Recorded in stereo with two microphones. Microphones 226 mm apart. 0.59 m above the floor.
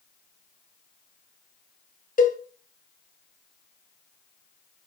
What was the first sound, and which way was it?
A cowbell, 35° left (ahead or behind).